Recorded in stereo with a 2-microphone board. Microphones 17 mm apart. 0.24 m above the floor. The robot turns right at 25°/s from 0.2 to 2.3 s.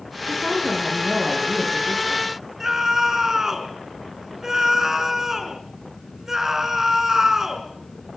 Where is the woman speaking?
160° left, 7 m; by 2.3 s 150° right, 7 m.